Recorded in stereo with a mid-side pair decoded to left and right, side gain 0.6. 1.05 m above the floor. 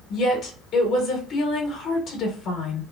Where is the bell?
No bell in this recording.